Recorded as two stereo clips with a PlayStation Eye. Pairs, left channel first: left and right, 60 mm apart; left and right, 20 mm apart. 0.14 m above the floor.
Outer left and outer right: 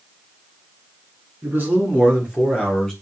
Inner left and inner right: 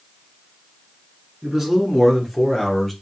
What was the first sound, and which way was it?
A man speaking, 35° right (ahead or behind).